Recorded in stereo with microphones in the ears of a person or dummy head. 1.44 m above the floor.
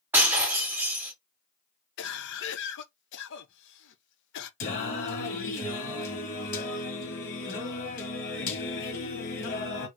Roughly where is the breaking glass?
Centre.